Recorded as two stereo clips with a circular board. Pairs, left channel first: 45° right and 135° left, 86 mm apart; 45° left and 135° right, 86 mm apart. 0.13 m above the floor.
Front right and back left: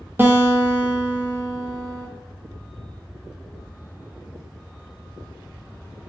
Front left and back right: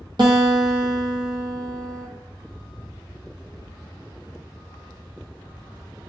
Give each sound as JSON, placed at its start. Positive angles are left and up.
{"t": 0.2, "sound": "a guitar", "azimuth_deg": -160, "distance_m": 1.0}